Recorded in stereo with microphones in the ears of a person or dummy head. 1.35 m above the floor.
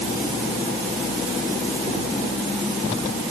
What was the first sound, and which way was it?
Only background noise.